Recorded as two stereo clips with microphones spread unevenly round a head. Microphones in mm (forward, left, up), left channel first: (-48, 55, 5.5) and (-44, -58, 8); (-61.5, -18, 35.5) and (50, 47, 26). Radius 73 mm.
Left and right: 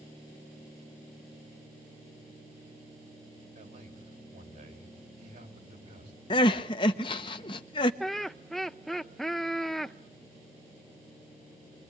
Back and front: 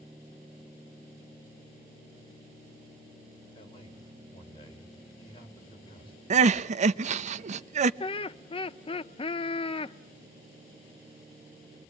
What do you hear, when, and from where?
3.5 s a man speaking: 95° right, 5 m
6.3 s crying: 40° left, 0.7 m
8.0 s laughter: straight behind, 0.6 m